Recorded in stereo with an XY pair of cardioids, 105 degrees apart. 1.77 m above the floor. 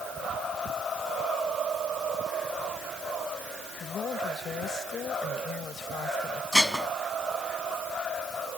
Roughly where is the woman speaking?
Ahead left.